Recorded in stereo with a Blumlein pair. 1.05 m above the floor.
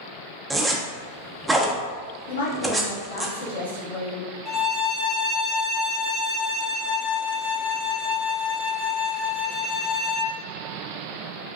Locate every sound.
0.5 s a zipper: 5° right, 0.6 m
2.3 s a woman speaking: 70° left, 1.2 m
4.5 s a violin: 25° left, 0.9 m